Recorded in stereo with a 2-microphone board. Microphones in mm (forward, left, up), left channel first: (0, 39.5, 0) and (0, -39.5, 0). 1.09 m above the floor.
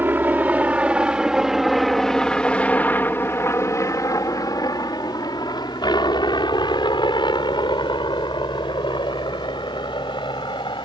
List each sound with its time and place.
0.0 s a helicopter: 25° right (ahead or behind); by 10.8 s 75° left (ahead or behind)